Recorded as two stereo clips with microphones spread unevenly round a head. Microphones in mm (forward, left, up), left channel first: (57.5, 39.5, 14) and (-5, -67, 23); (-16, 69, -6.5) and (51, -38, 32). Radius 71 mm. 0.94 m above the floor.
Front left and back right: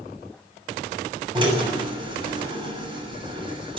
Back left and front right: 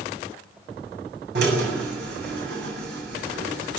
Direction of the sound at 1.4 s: 70° right.